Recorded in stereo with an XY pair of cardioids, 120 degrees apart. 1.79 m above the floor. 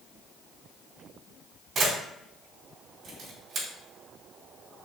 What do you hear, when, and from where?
1.8 s a camera shutter: 65° right, 2.5 m